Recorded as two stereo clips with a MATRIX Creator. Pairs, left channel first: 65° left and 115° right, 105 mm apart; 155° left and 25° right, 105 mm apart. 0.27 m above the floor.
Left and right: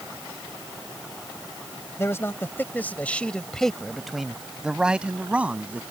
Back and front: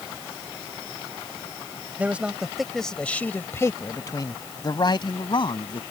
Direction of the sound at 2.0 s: 35° left.